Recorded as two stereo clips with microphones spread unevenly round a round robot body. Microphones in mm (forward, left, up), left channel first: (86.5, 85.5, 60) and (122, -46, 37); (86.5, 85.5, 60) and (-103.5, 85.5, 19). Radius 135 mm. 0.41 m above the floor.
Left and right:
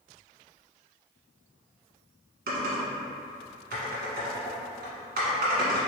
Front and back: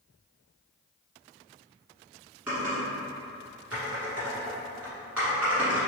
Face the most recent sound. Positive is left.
turn(degrees=-95)